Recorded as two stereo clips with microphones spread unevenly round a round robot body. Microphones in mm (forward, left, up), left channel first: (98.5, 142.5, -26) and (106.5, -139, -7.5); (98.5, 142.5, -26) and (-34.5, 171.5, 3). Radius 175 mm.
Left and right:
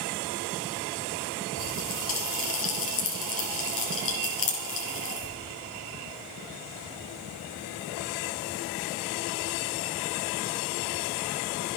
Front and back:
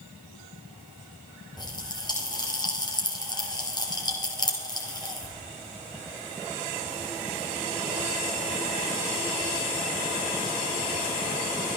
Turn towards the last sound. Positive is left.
turn(degrees=50)